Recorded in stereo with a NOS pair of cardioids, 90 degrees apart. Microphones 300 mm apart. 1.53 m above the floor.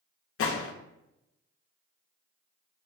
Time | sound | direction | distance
0.4 | a gunshot | 50° left | 0.7 m